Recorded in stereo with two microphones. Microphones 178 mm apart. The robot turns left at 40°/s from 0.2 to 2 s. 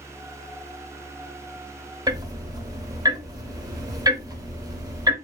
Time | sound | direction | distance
2.1 | ticking | 20° right (ahead or behind) | 0.8 m